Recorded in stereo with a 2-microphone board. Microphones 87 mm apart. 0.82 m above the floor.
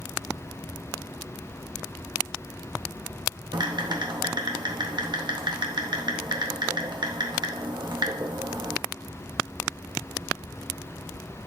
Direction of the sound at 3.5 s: 65° right (ahead or behind).